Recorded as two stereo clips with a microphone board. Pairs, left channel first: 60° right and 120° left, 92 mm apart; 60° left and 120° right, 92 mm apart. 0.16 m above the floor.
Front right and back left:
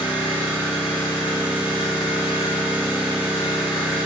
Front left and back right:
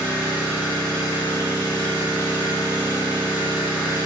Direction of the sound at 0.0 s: 175° left.